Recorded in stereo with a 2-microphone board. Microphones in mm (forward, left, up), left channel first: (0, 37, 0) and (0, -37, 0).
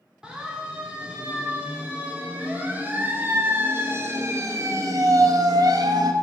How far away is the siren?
About 3.5 m.